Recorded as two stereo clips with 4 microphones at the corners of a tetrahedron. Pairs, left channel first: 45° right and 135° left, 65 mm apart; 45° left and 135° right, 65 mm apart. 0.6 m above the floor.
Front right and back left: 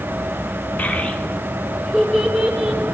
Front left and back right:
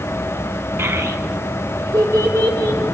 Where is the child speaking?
105° right, 1.1 m; by 2.9 s 145° right, 2.5 m.